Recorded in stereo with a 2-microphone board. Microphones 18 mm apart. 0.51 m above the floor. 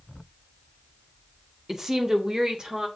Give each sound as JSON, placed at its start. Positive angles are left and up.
{"t": 1.7, "sound": "a woman speaking", "side_deg": -25, "distance_m": 0.7}